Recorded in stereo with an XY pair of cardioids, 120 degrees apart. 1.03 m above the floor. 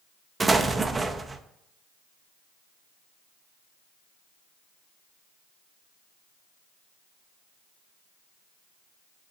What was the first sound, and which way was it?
An explosion, 20° right.